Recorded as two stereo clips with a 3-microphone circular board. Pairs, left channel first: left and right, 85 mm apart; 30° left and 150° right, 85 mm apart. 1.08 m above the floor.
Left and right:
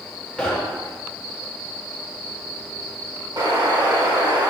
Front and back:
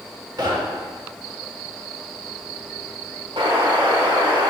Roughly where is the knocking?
Behind.